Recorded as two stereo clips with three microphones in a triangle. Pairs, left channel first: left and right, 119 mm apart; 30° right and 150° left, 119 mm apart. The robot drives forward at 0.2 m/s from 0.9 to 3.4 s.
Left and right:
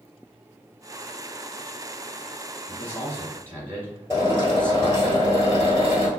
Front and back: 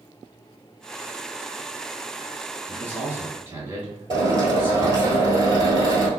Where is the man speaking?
130° left, 1.6 m; by 5.1 s 140° left, 1.6 m.